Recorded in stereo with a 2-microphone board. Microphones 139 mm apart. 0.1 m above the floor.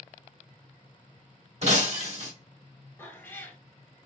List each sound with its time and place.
1.6 s breaking glass: 55° right (ahead or behind), 1.7 m
3.0 s a cat meowing: 15° left (ahead or behind), 0.9 m